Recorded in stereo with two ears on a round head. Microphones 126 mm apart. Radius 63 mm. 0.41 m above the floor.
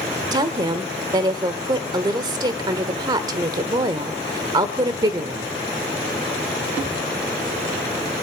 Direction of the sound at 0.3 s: 30° right (ahead or behind).